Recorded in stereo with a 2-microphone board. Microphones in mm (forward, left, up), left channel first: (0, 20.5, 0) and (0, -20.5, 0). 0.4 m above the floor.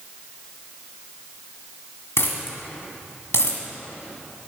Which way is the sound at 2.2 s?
80° left.